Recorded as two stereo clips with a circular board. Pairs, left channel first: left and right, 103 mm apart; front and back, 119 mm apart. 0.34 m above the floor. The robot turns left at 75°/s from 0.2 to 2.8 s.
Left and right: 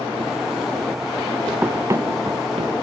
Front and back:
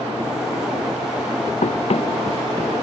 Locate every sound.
1.6 s running footsteps: 10° right; by 2.8 s 80° right